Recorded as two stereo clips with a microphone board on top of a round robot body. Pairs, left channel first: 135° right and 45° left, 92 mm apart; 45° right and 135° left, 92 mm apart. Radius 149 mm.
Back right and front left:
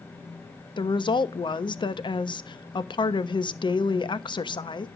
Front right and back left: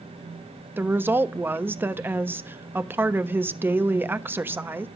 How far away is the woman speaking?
About 1.2 m.